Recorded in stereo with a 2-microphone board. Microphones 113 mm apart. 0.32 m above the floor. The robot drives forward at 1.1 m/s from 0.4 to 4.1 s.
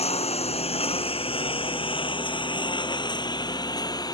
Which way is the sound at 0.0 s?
65° left (ahead or behind).